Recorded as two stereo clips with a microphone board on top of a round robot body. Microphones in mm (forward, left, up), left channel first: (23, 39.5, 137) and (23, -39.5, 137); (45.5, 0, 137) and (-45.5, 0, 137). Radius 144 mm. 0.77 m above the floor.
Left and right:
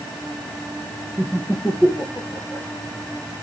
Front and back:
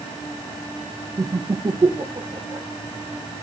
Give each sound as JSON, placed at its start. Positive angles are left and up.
{"t": 1.2, "sound": "laughter", "azimuth_deg": -175, "distance_m": 1.1}